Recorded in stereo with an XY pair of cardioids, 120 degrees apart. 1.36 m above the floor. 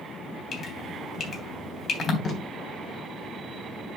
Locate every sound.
0.5 s dripping: 45° left, 3 m
2.2 s tape being pulled: 40° left, 3 m